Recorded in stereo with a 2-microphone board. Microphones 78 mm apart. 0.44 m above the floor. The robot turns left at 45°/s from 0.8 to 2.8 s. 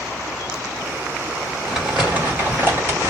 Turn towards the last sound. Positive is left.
turn(degrees=-65)